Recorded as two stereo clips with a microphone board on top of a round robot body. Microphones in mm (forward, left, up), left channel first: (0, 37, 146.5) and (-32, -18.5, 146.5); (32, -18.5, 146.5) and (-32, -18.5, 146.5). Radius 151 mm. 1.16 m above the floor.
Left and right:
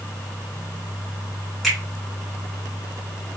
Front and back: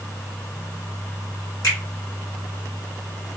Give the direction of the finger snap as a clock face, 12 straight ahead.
1 o'clock.